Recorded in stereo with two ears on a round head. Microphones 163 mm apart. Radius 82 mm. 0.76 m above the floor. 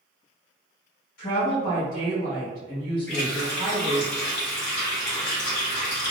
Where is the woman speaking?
45° left (ahead or behind), 1.6 m.